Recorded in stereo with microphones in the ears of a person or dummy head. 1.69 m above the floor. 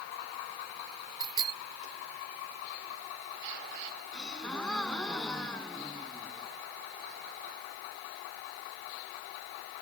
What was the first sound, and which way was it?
A bicycle bell, 20° right (ahead or behind).